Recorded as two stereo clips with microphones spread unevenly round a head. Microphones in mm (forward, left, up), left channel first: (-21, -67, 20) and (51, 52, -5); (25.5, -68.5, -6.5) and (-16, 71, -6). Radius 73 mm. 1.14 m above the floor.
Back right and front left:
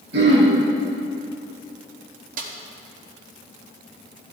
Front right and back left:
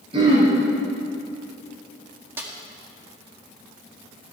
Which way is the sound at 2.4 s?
30° left.